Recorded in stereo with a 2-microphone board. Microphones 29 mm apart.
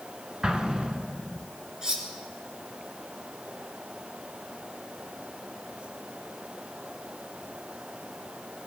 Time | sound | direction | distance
0.4 | an explosion | 30° right (ahead or behind) | 1.3 m
1.8 | cutlery clinking | 25° right (ahead or behind) | 3 m